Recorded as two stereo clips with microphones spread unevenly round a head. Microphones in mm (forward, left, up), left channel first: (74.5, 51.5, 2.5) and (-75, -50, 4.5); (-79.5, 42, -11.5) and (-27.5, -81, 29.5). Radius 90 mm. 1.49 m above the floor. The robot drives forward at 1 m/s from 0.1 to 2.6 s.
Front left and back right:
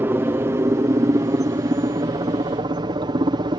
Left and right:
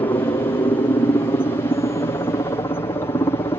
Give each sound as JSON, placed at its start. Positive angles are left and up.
{"t": 0.0, "sound": "a helicopter", "azimuth_deg": 145}